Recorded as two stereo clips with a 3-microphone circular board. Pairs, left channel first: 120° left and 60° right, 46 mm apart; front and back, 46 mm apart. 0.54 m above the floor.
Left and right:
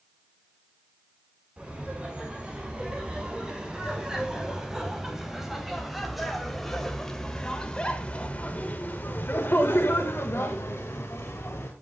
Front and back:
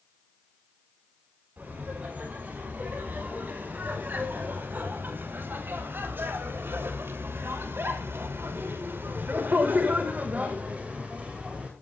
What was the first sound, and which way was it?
Laughter, 130° right.